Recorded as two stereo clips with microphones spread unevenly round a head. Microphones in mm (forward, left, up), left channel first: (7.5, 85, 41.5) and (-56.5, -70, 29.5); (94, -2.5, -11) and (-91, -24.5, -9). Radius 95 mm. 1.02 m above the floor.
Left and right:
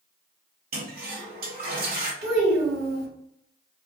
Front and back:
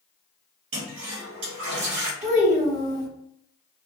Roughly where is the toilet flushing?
Behind right.